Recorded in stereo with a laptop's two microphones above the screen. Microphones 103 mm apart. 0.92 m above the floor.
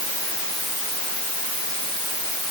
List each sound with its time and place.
Only background noise.